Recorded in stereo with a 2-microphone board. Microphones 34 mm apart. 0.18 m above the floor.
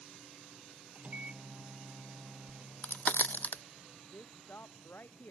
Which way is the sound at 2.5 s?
65° left (ahead or behind).